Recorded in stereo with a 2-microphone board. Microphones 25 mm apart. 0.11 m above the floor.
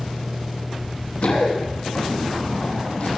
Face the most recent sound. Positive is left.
turn(degrees=65)  # may be behind; listen again after turning